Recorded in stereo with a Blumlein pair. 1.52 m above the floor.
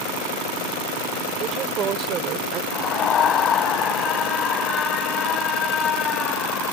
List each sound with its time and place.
1.4 s a woman speaking: 30° right
2.7 s a scream: 25° left